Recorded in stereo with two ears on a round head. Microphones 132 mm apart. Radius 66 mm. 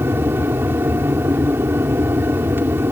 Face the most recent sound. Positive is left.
turn(degrees=-15)  # may be behind; listen again after turning